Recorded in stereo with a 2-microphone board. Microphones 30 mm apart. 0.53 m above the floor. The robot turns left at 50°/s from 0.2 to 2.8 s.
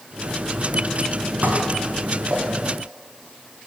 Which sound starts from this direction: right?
Dishes clattering, at 1.4 s.